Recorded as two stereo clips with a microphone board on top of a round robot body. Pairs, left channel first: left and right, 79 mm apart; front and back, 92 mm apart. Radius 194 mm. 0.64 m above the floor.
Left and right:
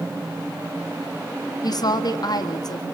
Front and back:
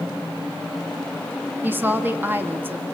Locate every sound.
1.6 s a woman speaking: 115° left, 2.0 m